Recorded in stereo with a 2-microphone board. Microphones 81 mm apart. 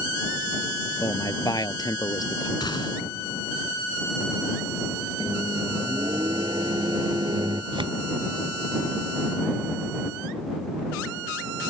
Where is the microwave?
65° right (ahead or behind).